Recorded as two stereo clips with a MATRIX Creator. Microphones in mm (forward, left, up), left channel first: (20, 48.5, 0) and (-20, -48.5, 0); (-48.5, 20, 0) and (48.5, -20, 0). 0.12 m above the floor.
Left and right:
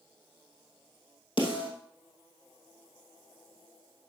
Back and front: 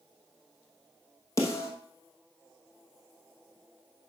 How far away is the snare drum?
About 2.5 m.